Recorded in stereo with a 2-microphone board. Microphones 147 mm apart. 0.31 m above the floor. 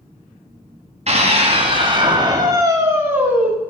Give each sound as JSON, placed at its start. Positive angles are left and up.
{"t": 1.1, "sound": "a scream", "side_deg": -50, "distance_m": 2.0}